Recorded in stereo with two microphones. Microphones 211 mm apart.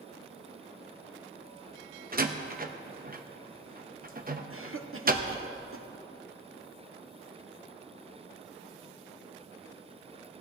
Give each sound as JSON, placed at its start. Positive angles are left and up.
{"t": 2.1, "sound": "a door slam", "side_deg": -45, "distance_m": 1.0}
{"t": 4.5, "sound": "a cough", "side_deg": -80, "distance_m": 1.1}